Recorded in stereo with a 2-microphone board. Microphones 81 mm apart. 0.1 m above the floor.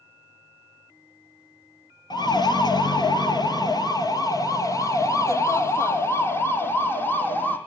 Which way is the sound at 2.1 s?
55° left (ahead or behind).